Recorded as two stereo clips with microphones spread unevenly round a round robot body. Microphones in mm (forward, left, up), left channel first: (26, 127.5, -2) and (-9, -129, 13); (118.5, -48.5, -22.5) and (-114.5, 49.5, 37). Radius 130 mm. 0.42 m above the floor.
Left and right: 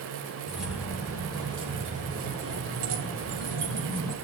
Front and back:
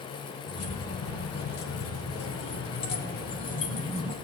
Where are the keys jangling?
10° right, 2.5 m; by 4.1 s 85° right, 2.5 m.